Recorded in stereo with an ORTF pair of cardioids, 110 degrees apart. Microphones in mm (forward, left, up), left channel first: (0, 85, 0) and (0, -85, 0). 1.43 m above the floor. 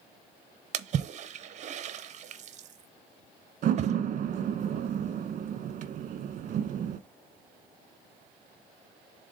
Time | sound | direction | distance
0.7 | a splash | 45° right | 0.8 m
3.6 | a door slam | 50° right | 1.1 m